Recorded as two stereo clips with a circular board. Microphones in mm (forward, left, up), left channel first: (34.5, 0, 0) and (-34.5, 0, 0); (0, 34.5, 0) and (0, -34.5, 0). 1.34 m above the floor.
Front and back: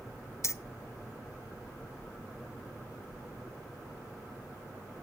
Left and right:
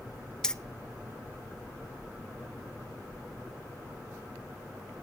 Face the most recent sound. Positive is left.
turn(degrees=15)